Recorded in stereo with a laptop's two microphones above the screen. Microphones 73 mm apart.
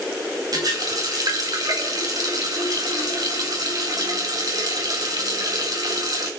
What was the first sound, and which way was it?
A running tap, 60° right (ahead or behind).